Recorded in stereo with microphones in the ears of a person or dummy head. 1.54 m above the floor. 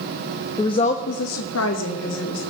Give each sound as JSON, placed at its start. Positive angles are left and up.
{"t": 0.6, "sound": "a woman speaking", "side_deg": 15, "distance_m": 0.7}